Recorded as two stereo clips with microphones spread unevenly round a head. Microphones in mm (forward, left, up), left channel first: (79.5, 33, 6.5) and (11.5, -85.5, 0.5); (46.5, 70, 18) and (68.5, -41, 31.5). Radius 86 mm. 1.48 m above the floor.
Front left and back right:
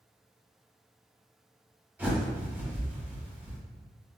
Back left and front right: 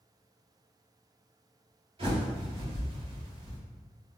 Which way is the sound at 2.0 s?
45° right.